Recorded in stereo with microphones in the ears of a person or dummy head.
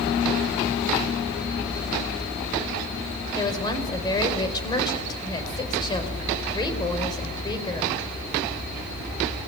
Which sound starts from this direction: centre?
A woman speaking, at 3.4 s.